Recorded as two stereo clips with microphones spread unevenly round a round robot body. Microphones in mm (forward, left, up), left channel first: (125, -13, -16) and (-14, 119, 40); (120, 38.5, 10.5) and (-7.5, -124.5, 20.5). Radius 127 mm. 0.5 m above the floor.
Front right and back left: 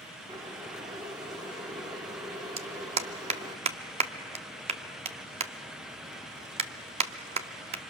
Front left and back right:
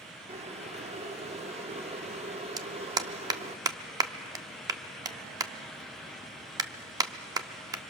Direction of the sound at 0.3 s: 140° right.